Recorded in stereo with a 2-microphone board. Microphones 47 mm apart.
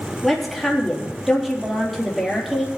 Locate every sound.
0.2 s a woman speaking: centre (ahead or behind), 4 m